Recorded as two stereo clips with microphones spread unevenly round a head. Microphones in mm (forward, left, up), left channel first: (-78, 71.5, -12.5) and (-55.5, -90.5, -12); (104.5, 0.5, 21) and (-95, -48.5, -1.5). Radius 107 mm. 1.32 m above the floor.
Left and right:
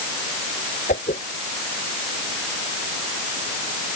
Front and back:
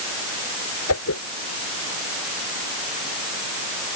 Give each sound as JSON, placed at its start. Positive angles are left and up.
{"t": 0.9, "sound": "a whoosh", "azimuth_deg": 40}